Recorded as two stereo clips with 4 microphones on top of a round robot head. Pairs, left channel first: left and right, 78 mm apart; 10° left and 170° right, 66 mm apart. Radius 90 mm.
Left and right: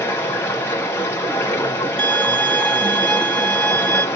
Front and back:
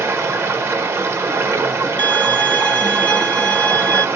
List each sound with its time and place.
0.0 s running water: 145° left, 0.9 m
2.0 s a violin: 30° left, 0.8 m